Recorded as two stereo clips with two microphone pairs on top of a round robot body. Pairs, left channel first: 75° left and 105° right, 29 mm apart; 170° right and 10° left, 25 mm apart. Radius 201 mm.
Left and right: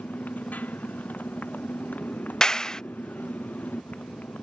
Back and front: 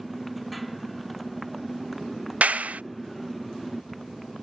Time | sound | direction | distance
0.0 | a motorcycle | 100° left | ?
2.4 | a clap | 5° left | ?